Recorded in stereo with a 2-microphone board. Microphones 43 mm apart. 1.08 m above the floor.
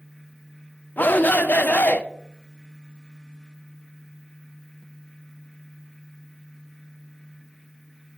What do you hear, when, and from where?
1.0 s a shout: 45° left (ahead or behind), 0.5 m